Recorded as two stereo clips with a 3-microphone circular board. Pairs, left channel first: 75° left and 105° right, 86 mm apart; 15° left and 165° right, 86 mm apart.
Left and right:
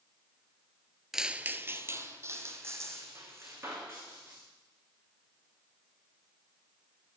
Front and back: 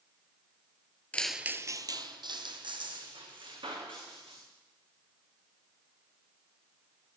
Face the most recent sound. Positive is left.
turn(degrees=-165)